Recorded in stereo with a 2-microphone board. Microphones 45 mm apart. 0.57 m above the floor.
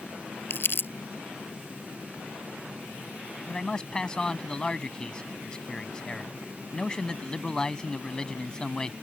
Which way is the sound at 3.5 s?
20° left (ahead or behind).